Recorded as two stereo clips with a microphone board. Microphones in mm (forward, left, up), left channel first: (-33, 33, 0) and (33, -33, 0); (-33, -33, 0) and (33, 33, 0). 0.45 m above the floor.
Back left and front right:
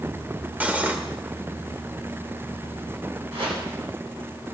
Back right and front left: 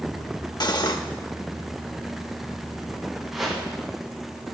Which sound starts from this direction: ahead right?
A whoosh, at 3.3 s.